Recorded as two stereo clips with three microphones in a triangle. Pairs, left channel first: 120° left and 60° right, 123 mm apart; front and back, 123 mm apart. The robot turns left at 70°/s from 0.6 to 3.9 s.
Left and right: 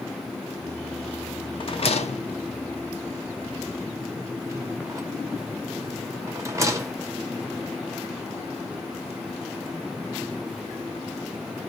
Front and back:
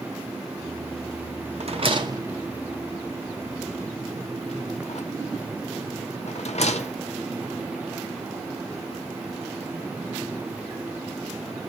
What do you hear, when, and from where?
1.6 s a rattle: 160° left, 0.6 m; by 7.0 s straight ahead, 0.6 m